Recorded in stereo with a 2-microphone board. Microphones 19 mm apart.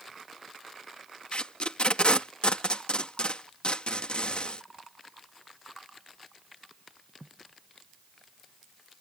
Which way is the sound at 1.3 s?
60° left (ahead or behind).